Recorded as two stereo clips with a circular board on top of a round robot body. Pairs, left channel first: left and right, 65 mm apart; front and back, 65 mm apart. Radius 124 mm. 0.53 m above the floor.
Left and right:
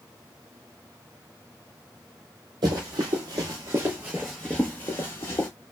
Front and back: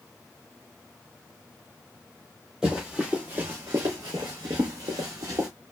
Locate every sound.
2.6 s running footsteps: 100° right, 1.1 m; by 5.5 s 135° left, 1.0 m